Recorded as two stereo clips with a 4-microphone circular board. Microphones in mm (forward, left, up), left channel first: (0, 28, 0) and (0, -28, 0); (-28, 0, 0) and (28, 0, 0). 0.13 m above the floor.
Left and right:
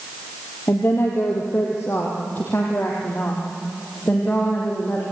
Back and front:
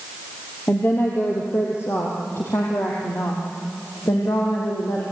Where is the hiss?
No hiss in this recording.